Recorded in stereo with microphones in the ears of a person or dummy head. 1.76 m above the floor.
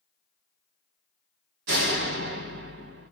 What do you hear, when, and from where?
1.7 s a door slam: 60° right (ahead or behind), 1.5 m